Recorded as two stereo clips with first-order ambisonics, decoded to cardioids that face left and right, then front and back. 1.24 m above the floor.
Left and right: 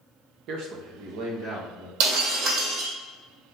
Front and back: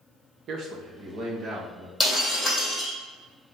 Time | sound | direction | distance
0.5 | a man speaking | 125° right | 1.0 m
2.0 | breaking glass | 85° right | 3 m